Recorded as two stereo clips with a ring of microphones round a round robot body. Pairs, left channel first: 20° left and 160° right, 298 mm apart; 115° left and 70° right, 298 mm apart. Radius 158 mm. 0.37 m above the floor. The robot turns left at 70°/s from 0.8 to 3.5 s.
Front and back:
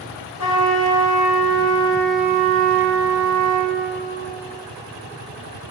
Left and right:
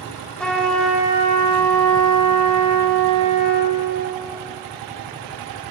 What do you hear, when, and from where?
0.4 s a trumpet: 25° left, 2.5 m; by 3.8 s 165° right, 2.5 m